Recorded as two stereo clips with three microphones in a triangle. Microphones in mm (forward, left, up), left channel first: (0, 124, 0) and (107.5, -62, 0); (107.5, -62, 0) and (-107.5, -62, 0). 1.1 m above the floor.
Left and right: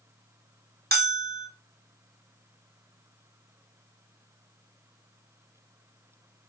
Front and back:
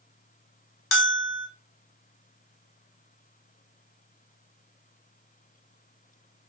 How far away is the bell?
About 0.6 m.